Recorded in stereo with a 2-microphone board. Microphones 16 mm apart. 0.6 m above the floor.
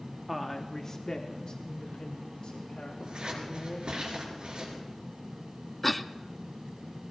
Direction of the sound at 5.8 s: 10° left (ahead or behind).